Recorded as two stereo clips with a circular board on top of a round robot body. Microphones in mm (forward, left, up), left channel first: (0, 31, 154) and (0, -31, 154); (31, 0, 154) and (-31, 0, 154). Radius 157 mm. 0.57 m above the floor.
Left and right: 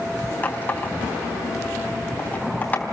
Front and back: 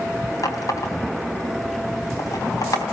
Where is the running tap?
30° left, 3.5 m.